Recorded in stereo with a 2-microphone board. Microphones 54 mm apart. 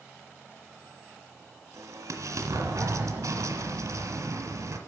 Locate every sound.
1.7 s an explosion: 80° right, 1.6 m